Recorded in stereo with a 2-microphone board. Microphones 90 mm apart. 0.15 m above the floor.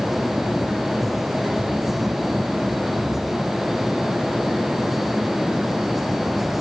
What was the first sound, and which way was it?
Only background noise.